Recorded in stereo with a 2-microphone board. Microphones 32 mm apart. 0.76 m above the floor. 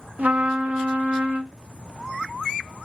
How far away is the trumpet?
About 0.7 m.